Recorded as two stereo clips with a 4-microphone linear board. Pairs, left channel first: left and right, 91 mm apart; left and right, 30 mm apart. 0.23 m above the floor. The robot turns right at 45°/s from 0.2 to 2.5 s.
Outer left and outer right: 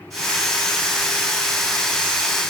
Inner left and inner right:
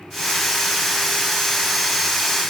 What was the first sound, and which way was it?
Only background noise.